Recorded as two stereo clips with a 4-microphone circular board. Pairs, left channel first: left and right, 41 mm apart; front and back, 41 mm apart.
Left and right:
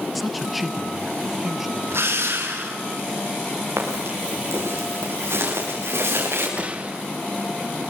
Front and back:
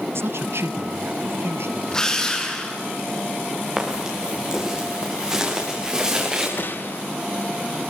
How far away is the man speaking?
About 0.8 m.